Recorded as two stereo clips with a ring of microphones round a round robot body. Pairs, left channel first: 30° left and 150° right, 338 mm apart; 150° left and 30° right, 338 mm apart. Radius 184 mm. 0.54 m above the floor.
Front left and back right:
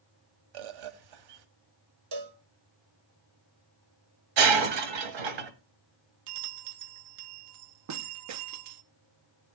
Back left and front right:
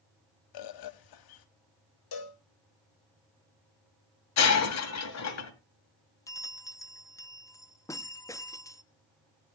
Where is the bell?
130° right, 0.9 m.